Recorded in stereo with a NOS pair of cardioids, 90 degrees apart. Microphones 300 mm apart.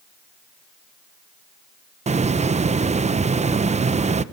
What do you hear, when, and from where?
2.1 s a hiss: 25° right, 0.8 m